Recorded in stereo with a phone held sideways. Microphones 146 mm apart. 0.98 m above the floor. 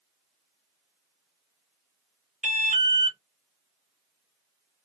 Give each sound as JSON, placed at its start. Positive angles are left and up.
{"t": 2.4, "sound": "an alarm", "side_deg": -55, "distance_m": 0.8}